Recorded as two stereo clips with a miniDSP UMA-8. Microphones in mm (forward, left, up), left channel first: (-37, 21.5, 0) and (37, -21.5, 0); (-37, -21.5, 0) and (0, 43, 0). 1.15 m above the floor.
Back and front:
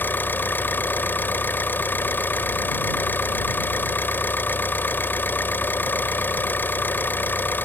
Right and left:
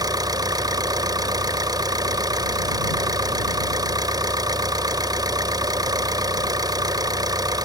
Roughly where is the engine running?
Left.